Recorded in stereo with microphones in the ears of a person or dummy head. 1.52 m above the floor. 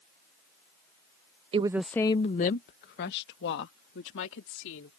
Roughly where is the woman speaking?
Right.